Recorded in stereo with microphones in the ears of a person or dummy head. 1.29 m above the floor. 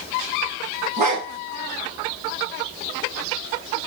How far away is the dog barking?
About 2 m.